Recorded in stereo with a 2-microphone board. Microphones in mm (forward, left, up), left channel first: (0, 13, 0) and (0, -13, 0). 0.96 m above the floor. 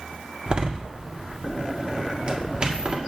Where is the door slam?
35° right (ahead or behind), 1.6 m.